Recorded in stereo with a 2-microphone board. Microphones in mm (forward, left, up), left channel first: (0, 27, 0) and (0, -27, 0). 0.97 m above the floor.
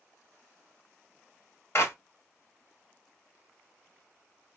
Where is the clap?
55° left (ahead or behind), 1.7 m.